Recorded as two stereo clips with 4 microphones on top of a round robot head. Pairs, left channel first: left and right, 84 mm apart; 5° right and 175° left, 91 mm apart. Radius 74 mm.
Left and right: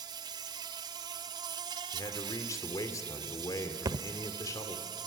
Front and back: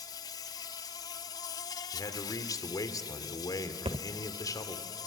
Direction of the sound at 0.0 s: 55° right.